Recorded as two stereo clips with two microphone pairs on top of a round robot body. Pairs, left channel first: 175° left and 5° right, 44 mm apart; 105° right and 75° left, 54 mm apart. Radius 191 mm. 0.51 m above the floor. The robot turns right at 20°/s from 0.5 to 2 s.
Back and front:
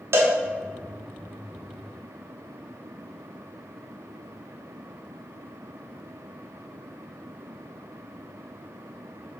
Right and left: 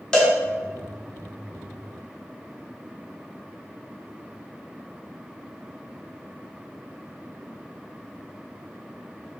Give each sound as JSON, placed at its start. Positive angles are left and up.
{"t": 0.1, "sound": "a cowbell", "azimuth_deg": -30, "distance_m": 0.8}